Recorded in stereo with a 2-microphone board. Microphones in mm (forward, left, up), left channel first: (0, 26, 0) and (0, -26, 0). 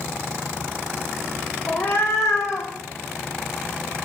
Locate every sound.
1.7 s a cat meowing: 40° left (ahead or behind), 1.8 m; by 2.7 s 75° left (ahead or behind), 2 m